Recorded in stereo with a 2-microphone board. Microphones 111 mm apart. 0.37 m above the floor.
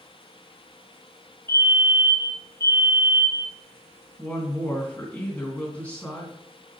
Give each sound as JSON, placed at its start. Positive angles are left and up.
{"t": 1.5, "sound": "a fire alarm", "side_deg": 20, "distance_m": 2.0}
{"t": 4.2, "sound": "a woman speaking", "side_deg": 15, "distance_m": 3.0}